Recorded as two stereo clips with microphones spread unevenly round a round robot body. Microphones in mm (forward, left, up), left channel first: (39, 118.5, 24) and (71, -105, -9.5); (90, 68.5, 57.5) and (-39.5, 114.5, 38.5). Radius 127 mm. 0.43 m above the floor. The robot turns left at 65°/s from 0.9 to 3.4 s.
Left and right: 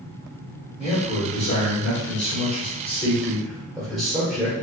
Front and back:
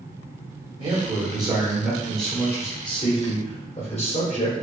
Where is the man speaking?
160° left, 1.7 m; by 4.5 s straight ahead, 1.7 m.